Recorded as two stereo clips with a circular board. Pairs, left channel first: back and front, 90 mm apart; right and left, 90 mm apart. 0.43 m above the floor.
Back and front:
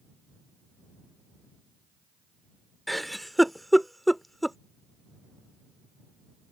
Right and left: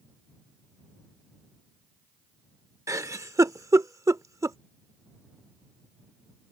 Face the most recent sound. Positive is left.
turn(degrees=90)